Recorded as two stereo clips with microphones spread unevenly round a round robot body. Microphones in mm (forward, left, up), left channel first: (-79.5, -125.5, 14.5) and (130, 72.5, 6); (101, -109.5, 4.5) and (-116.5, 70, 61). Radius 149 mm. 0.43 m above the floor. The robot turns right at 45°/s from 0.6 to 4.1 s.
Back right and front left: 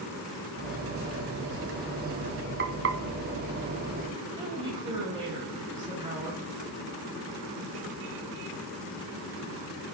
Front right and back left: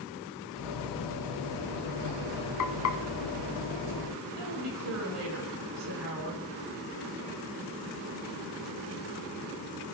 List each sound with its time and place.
2.6 s frying: 10° right, 1.2 m; by 3.0 s 5° left, 1.2 m
4.4 s a woman speaking: 120° left, 4 m